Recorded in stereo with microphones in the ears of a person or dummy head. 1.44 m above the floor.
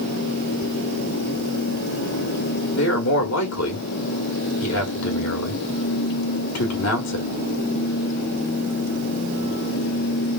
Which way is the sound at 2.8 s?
75° left (ahead or behind).